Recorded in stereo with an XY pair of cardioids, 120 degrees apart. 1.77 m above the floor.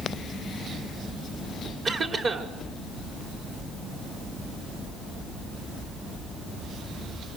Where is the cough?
45° right, 4 m.